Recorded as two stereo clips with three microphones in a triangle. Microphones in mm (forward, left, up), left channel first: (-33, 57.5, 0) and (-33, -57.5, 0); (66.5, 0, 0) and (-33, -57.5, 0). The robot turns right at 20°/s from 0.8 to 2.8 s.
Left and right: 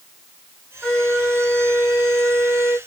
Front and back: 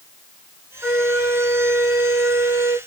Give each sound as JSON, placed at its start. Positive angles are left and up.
{"t": 0.8, "sound": "a flute", "azimuth_deg": 170, "distance_m": 1.4}